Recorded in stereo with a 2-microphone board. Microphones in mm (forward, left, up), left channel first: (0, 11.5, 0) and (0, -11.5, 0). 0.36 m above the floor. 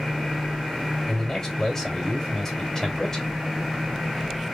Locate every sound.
1.1 s a man speaking: 20° left (ahead or behind), 1.9 m